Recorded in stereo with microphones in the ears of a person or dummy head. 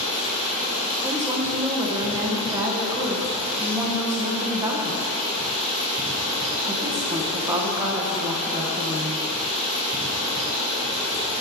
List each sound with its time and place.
0.0 s running water: 10° right (ahead or behind), 3 m
1.0 s a woman speaking: 15° right (ahead or behind), 1.3 m